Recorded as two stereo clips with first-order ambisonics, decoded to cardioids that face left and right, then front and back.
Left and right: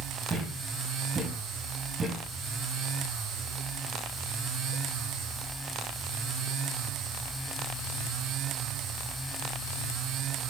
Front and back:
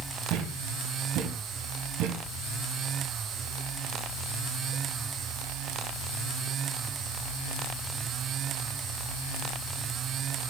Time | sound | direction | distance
0.3 | a thud | 155° right | 3 m